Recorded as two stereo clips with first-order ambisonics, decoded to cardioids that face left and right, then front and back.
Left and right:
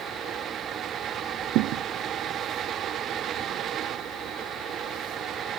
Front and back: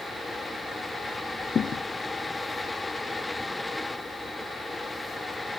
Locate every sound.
1.6 s a thud: 65° right